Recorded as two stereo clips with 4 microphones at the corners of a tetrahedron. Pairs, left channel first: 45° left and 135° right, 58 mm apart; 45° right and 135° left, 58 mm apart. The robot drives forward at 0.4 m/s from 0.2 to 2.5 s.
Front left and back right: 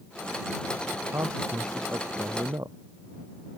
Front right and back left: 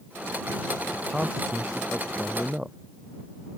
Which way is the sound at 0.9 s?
150° right.